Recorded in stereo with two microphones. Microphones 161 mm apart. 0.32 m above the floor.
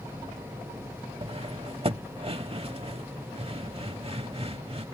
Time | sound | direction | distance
1.2 | cutlery clinking | 35° right (ahead or behind) | ?